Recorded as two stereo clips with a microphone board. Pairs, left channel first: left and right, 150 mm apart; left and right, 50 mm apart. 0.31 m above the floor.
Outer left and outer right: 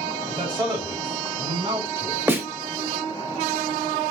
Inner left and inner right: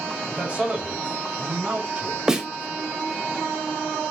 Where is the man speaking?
30° right (ahead or behind), 1.9 m; by 2.3 s 35° right (ahead or behind), 1.5 m.